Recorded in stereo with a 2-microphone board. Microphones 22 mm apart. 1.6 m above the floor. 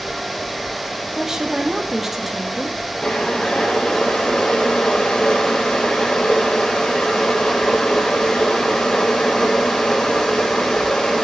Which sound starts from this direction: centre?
A woman speaking, at 1.1 s.